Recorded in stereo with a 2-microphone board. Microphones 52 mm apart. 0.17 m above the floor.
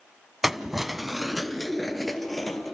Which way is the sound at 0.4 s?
5° right (ahead or behind).